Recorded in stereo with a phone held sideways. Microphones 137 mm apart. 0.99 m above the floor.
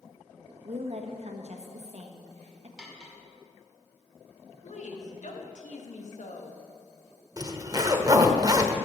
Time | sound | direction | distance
0.7 | a woman speaking | 55° right (ahead or behind) | 1.4 m
2.8 | cutlery clinking | 5° right (ahead or behind) | 1.9 m
4.6 | a woman speaking | 65° left (ahead or behind) | 1.6 m
7.4 | a zipper | 30° right (ahead or behind) | 0.9 m